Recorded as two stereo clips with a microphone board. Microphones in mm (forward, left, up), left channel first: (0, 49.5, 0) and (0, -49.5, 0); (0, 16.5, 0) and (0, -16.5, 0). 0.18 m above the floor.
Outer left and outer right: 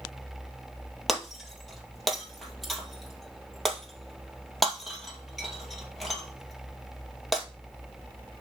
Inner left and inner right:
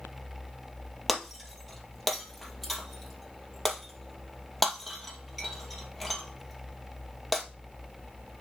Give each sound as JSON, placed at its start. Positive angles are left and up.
{"t": 1.1, "sound": "breaking glass", "side_deg": 0, "distance_m": 1.8}